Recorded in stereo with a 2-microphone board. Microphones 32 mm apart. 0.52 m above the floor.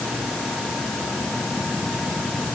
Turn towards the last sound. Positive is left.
No sound to turn to.